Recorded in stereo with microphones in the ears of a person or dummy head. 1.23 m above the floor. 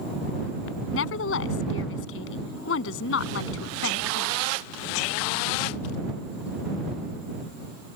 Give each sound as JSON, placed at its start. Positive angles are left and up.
{"t": 0.9, "sound": "a woman speaking", "side_deg": 90}